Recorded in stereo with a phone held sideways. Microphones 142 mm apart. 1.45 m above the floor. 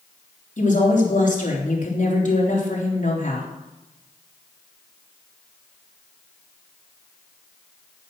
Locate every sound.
0.6 s a woman speaking: 60° left (ahead or behind), 3.5 m